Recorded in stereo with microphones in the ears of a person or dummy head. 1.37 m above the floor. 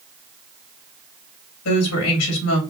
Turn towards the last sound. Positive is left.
turn(degrees=80)